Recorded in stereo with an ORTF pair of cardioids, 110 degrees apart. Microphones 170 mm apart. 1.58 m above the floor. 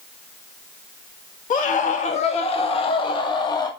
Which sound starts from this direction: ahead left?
A scream, at 1.5 s.